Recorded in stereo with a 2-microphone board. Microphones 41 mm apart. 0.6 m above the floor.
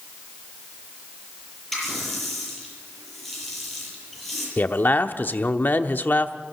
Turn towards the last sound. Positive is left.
turn(degrees=50)  # may be behind; listen again after turning